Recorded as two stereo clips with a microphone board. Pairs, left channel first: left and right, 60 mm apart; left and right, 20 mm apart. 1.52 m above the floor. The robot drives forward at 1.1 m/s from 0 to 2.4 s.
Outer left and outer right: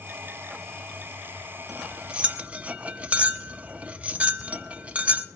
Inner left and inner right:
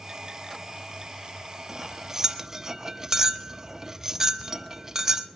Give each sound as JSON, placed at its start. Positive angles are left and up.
{"t": 1.7, "sound": "cutlery clinking", "side_deg": -15, "distance_m": 1.3}